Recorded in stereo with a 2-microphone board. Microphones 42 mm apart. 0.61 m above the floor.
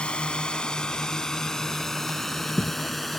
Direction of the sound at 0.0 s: 25° left (ahead or behind).